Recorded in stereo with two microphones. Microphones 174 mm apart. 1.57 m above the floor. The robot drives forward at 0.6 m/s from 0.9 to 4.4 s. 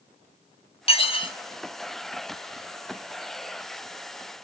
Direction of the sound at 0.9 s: 35° left (ahead or behind).